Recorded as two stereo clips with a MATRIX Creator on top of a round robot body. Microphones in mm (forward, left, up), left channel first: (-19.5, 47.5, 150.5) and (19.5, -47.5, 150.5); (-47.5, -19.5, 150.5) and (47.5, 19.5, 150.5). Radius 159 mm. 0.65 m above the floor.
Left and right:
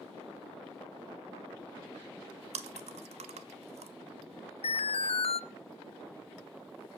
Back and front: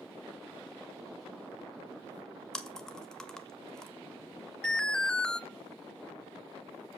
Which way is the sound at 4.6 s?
120° left.